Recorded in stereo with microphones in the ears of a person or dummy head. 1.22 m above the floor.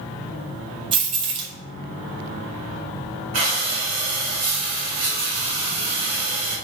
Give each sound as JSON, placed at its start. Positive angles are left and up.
{"t": 0.9, "sound": "keys jangling", "side_deg": -30, "distance_m": 0.5}
{"t": 3.3, "sound": "breathing", "side_deg": -50, "distance_m": 0.9}